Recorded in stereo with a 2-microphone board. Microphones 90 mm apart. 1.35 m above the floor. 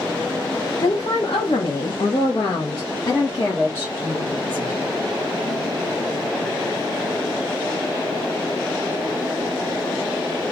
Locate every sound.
0.8 s a woman speaking: 80° left, 1.0 m; by 4.8 s 20° left (ahead or behind), 2.0 m